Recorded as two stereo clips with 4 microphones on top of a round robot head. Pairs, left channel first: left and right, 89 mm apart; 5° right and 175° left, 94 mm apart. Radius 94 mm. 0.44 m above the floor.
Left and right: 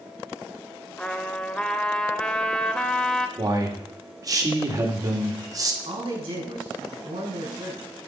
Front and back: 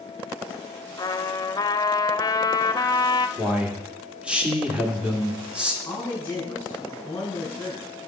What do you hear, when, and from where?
1.0 s a trumpet: 15° left, 0.8 m
3.4 s a man speaking: 115° right, 1.8 m
5.8 s a man speaking: 80° right, 6.5 m